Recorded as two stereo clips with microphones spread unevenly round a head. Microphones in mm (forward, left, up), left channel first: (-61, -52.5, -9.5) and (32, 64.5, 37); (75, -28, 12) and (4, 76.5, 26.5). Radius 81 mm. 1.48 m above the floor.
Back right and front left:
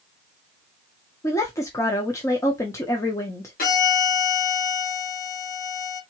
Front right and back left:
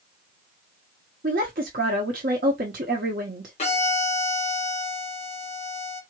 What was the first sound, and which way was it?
A woman speaking, 155° left.